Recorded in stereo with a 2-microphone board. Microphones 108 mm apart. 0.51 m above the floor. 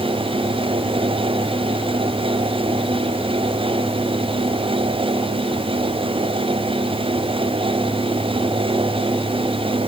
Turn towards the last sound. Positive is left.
No sound to turn to.